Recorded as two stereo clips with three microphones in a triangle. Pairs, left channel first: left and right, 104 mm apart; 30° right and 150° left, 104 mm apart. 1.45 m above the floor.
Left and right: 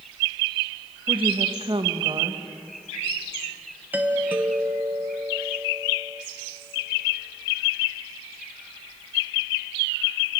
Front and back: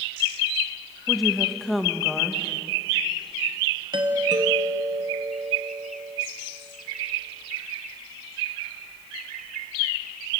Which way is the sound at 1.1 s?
120° right.